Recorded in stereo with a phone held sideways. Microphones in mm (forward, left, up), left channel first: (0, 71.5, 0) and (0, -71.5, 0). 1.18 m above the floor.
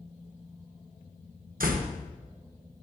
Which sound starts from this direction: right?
A door slam, at 1.6 s.